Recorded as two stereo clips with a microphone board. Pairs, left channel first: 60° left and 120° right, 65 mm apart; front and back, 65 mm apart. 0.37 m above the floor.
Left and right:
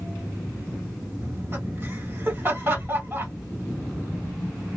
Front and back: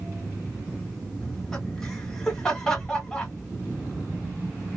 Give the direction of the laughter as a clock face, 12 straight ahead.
3 o'clock.